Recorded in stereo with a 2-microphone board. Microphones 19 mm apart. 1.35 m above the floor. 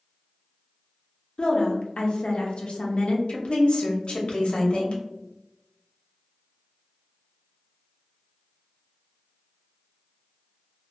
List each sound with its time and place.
1.4 s a woman speaking: 65° left (ahead or behind), 0.6 m
3.3 s a woman speaking: 65° left (ahead or behind), 0.7 m